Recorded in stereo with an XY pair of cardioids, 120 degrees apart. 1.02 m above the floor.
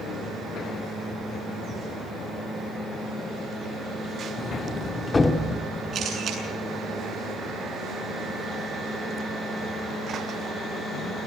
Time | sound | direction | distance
4.4 | a sliding door | 20° left | 1.5 m
5.9 | a camera shutter | 45° right | 8 m